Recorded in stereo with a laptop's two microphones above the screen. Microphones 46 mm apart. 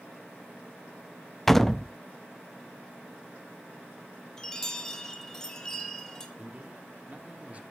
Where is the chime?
15° left (ahead or behind), 2.0 m.